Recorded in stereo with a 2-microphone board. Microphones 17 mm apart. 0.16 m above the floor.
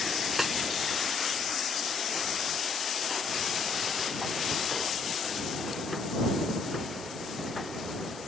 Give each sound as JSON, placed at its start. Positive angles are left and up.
{"t": 0.4, "sound": "a snare drum", "side_deg": -15}